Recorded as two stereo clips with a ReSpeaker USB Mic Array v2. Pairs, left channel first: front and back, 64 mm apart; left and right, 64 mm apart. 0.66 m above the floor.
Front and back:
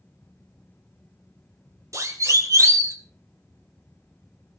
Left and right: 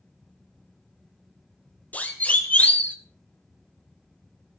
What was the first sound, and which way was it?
A siren, 150° left.